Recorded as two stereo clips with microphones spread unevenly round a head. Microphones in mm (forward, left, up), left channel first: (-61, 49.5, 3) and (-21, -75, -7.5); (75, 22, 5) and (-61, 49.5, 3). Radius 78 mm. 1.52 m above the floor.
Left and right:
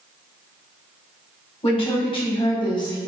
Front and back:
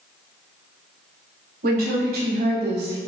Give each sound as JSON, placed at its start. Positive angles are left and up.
{"t": 1.6, "sound": "a woman speaking", "azimuth_deg": 155, "distance_m": 1.8}